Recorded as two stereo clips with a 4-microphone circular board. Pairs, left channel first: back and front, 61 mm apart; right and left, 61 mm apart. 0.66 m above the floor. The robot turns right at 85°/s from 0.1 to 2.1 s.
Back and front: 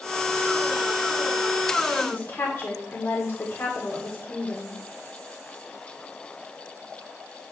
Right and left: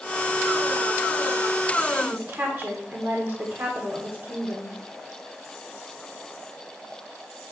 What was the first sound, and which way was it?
A woman speaking, 130° left.